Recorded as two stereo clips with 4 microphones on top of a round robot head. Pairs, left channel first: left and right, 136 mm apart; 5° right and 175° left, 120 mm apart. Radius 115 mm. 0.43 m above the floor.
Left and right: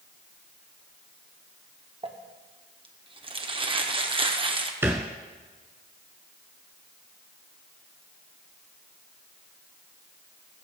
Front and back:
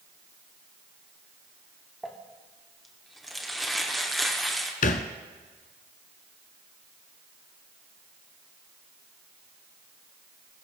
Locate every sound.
2.0 s crumpling: 95° right, 1.5 m
4.8 s a thud: 10° right, 0.7 m